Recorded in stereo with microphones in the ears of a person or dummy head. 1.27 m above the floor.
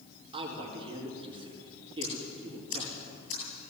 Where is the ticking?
70° left (ahead or behind), 9.5 m.